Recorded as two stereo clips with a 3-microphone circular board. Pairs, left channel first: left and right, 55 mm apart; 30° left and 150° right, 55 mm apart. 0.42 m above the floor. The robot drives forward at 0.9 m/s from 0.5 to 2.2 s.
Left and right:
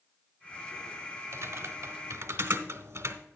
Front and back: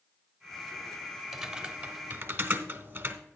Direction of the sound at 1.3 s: 70° right.